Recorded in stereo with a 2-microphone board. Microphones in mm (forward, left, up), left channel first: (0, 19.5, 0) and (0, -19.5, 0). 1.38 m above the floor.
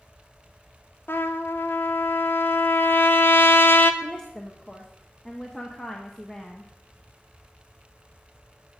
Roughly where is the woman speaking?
Centre.